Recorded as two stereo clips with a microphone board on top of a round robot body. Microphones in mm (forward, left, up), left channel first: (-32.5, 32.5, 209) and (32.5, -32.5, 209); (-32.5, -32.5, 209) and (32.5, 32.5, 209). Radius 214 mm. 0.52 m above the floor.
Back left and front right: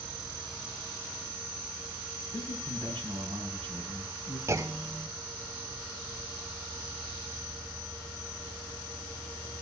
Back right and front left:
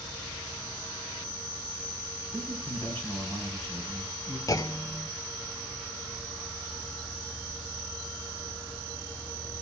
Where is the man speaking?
75° right, 6.5 m.